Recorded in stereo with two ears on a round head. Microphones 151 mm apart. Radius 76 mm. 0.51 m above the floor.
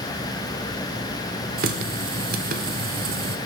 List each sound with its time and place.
1.6 s a running tap: 55° right (ahead or behind), 0.9 m